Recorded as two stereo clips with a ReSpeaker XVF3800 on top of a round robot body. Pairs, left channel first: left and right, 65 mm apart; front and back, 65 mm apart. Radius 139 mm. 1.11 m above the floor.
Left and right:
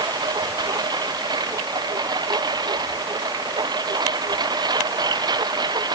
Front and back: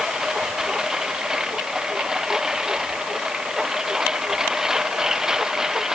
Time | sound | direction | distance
0.0 | a lawn mower | 100° right | ?